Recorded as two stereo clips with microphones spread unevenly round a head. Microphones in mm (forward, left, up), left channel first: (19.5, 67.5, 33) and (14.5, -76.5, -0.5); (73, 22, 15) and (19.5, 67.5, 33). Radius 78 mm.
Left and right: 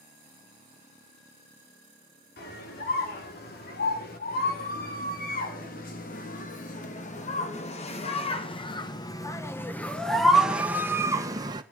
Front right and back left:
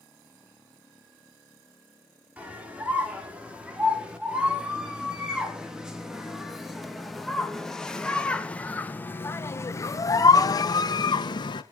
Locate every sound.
2.4 s a scream: 70° left, 5.5 m; by 11.6 s 30° right, 1.9 m